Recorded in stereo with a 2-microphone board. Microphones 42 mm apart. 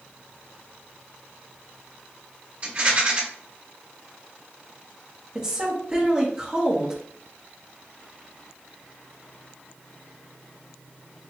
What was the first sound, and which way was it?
A rattle, 35° right (ahead or behind).